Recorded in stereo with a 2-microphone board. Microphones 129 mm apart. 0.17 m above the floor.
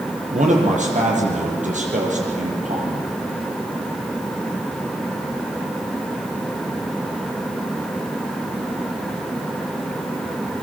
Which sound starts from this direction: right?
A man speaking, at 0.3 s.